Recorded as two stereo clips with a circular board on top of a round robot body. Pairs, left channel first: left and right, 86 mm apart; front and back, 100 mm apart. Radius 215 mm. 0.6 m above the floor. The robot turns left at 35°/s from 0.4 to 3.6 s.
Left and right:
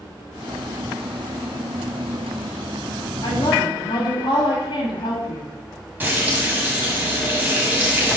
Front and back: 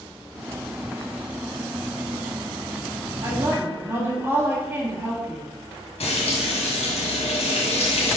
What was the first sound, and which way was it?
A woman speaking, 125° left.